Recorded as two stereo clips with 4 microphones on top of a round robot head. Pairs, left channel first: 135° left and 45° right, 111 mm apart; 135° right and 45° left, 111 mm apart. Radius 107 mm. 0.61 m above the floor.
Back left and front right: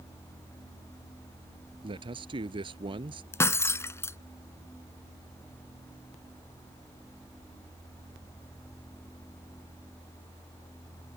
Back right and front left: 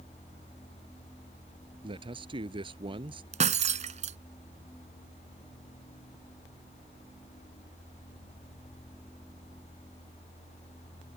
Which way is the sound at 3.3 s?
65° left.